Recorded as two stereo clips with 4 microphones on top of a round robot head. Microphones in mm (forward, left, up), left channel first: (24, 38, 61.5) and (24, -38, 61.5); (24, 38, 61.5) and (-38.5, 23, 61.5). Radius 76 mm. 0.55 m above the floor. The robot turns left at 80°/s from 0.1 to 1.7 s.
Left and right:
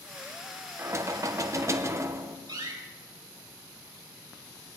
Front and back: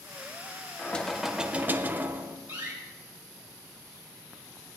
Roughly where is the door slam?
Right.